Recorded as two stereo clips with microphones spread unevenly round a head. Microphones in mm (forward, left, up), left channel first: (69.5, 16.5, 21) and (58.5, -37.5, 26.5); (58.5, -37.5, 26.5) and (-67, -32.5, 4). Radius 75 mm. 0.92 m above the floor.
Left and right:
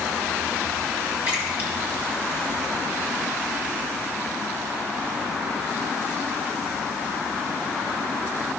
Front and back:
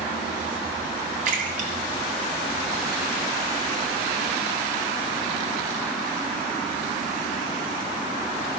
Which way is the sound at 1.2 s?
170° right.